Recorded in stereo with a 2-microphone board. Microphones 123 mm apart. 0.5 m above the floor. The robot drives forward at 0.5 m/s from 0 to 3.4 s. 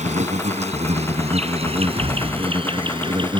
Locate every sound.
0.0 s an insect: 75° right (ahead or behind); by 3.4 s 40° right (ahead or behind)
1.6 s a cupboard door: 60° right (ahead or behind); by 2.5 s 55° right (ahead or behind)